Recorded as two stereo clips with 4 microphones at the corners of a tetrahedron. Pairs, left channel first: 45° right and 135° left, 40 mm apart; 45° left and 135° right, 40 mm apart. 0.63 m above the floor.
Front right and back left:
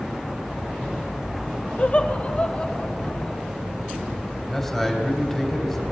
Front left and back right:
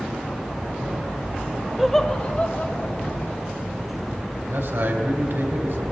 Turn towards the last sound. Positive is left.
turn(degrees=-130)